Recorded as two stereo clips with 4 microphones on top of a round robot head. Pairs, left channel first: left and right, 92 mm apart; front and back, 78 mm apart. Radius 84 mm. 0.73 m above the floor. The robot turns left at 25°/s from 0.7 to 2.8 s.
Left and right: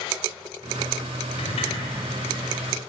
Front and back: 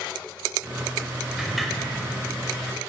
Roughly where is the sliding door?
Left.